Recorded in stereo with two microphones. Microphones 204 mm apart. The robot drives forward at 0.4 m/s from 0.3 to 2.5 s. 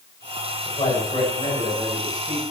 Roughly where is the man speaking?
Left.